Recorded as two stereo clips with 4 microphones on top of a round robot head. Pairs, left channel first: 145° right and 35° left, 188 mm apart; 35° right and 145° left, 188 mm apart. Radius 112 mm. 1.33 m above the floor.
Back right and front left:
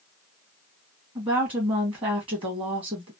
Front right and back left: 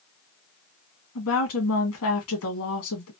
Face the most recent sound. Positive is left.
turn(degrees=-30)